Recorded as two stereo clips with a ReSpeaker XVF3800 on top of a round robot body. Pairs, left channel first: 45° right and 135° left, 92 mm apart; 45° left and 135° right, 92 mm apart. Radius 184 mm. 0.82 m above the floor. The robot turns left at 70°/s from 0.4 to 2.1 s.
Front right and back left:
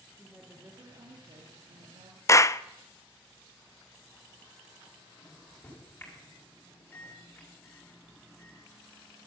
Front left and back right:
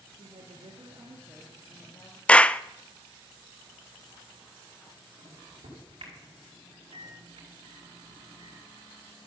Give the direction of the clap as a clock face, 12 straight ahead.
1 o'clock.